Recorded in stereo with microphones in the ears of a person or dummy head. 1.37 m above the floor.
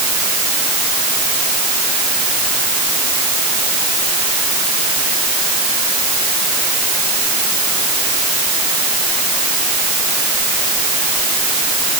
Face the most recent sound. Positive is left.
No sound to turn to.